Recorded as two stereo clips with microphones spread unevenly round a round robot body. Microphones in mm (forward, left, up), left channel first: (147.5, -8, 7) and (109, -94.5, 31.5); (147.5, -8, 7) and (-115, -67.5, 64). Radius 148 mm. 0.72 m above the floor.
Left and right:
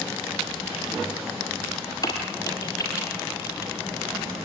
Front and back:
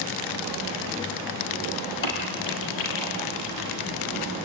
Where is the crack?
15° left, 6.5 m.